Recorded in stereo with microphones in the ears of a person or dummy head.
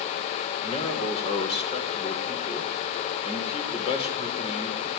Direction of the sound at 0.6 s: 40° left (ahead or behind).